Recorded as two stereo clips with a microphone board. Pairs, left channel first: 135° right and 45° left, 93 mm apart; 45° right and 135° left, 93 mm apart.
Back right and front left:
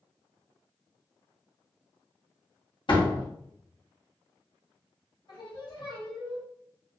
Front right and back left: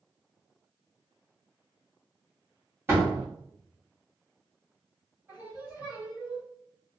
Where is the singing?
160° right, 1.8 m.